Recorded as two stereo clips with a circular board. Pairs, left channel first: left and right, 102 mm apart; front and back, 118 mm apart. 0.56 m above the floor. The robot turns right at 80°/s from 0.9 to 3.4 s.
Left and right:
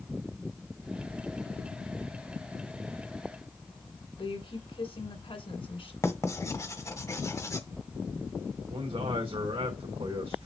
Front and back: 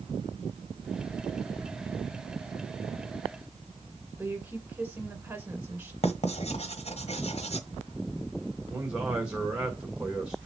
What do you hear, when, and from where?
4.2 s a woman speaking: 105° left, 2.5 m
6.0 s writing: 30° left, 1.4 m
8.7 s a man speaking: 100° right, 1.8 m